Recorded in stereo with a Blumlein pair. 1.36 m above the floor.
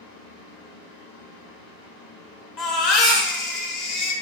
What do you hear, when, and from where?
0.0 s a fan: 50° left, 1.8 m
2.6 s a baby crying: 35° left, 1.1 m